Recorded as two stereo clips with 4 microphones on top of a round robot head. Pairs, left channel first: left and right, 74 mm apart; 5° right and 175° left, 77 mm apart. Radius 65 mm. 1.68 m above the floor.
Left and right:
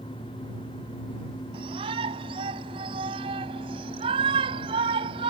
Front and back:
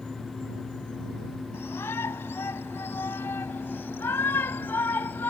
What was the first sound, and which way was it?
A shout, 75° right.